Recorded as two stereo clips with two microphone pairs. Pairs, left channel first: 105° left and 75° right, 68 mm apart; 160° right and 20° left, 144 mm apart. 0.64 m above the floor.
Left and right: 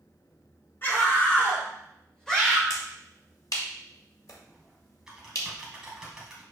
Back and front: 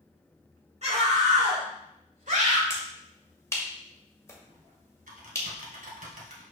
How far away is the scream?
About 4 m.